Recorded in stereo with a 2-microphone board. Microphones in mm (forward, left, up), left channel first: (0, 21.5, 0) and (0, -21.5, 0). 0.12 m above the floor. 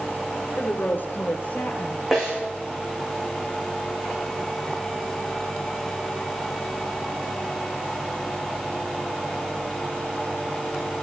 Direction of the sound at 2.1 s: 15° right (ahead or behind).